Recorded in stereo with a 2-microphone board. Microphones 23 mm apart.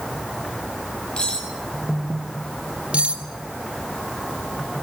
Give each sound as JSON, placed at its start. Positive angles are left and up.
{"t": 1.2, "sound": "cutlery clinking", "side_deg": 35, "distance_m": 7.0}
{"t": 2.9, "sound": "cutlery clinking", "side_deg": -55, "distance_m": 3.5}